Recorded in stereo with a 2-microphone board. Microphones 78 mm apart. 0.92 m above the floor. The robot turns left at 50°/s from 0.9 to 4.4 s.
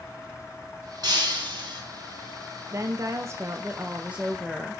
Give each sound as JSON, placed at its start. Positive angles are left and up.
{"t": 1.0, "sound": "breaking glass", "azimuth_deg": -65, "distance_m": 4.0}
{"t": 2.7, "sound": "a woman speaking", "azimuth_deg": -85, "distance_m": 0.7}